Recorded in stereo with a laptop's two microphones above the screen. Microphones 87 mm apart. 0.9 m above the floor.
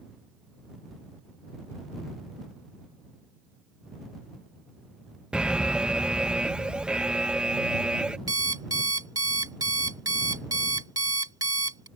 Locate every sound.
5.3 s an alarm: 10° right (ahead or behind)
8.3 s an alarm clock: 45° right (ahead or behind)